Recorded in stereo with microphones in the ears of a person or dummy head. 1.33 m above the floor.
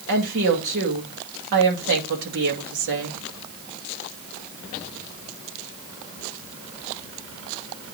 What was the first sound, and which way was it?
A woman speaking, 60° right (ahead or behind).